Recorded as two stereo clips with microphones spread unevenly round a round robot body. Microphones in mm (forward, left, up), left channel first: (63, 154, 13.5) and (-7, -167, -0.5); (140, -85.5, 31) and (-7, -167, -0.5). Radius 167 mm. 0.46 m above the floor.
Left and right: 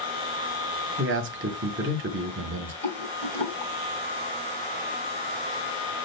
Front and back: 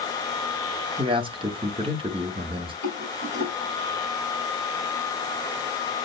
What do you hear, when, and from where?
1.0 s a man speaking: 130° right, 0.8 m
2.8 s a rattle: 5° left, 1.4 m